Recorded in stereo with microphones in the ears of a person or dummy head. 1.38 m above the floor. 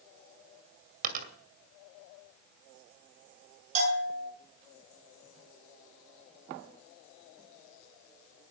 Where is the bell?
40° right (ahead or behind), 9.5 m.